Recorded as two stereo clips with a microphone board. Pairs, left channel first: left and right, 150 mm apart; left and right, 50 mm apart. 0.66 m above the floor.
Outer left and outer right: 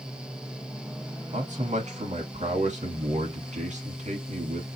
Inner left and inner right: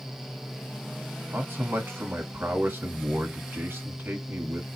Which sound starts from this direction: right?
A man speaking, at 1.3 s.